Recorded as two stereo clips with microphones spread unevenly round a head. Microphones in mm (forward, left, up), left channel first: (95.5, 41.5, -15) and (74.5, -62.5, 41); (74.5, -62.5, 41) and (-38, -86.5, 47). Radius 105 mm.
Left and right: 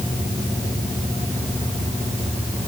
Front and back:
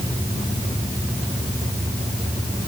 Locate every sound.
Only background noise.